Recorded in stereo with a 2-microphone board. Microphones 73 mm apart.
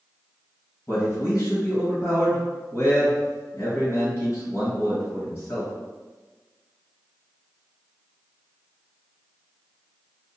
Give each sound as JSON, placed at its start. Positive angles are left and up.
{"t": 0.9, "sound": "a man speaking", "side_deg": 40, "distance_m": 2.0}